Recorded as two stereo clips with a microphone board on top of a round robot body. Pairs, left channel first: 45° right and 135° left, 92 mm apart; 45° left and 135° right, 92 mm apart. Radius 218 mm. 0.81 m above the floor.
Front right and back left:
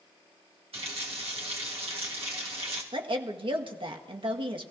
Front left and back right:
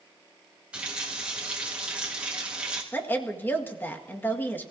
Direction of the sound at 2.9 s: 115° left.